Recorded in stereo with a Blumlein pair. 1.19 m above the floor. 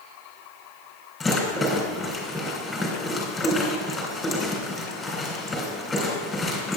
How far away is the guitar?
I don't hear a guitar.